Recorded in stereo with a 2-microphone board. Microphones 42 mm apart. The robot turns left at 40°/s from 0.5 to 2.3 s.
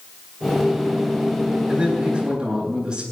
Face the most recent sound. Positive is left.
turn(degrees=-15)  # may be behind; listen again after turning